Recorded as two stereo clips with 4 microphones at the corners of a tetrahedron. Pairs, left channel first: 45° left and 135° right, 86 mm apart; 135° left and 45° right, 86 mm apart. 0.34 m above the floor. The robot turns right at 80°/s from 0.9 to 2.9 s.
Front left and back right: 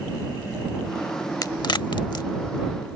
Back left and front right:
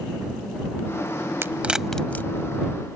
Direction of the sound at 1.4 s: 10° left.